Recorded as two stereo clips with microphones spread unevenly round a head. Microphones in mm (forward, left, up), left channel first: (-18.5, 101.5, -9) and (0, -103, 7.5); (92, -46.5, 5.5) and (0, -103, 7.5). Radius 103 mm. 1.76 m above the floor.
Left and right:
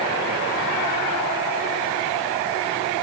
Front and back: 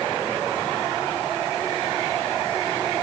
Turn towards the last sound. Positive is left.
No sound to turn to.